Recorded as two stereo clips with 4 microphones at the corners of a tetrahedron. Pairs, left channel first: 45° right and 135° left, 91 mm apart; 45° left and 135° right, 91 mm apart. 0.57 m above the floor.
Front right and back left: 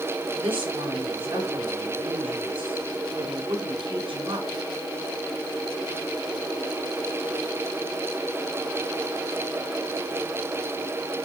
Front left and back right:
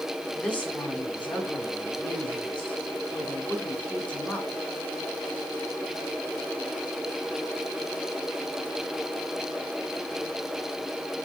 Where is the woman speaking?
125° left, 5 m.